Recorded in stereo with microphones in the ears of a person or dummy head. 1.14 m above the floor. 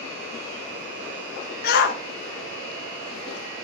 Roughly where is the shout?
Left.